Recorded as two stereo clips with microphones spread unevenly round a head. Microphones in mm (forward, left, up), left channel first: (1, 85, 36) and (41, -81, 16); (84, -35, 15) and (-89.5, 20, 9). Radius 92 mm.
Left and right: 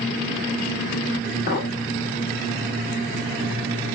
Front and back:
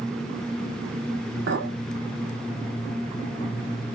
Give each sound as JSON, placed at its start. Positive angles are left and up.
{"t": 1.5, "sound": "a clink", "azimuth_deg": 140, "distance_m": 2.5}